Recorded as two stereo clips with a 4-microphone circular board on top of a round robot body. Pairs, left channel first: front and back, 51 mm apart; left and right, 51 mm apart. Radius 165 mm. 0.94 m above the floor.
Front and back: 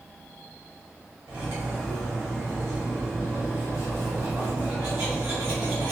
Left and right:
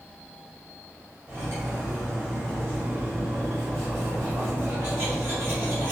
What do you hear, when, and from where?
1.3 s cutlery clinking: 135° right, 0.9 m